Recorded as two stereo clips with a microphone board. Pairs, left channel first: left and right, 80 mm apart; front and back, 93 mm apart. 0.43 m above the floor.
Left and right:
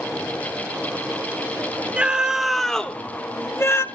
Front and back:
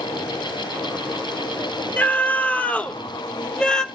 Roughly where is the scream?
Ahead right.